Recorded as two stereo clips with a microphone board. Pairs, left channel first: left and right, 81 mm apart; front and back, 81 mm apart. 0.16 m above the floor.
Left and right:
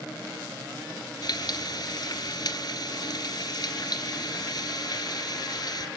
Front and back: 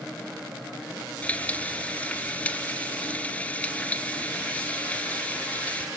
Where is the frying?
70° left, 1.5 m.